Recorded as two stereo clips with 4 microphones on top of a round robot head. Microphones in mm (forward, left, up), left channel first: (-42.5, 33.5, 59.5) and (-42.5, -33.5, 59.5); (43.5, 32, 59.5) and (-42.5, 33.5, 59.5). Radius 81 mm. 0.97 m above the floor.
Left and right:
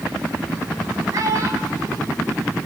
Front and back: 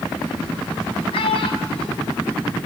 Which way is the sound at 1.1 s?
35° right.